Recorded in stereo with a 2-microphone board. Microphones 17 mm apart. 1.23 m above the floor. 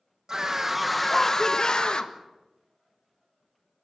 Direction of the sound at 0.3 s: 35° right (ahead or behind).